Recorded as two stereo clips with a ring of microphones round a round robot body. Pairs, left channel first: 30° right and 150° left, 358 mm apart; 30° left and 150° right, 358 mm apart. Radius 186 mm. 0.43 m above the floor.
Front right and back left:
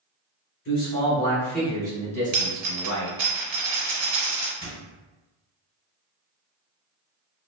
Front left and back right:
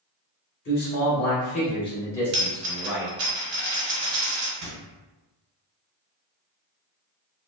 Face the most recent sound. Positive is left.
turn(degrees=-125)